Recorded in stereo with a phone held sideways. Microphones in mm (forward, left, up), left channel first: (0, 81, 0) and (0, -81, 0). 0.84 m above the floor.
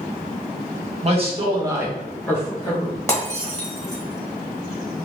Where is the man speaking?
45° right (ahead or behind), 1.2 m; by 3.0 s 40° left (ahead or behind), 1.1 m.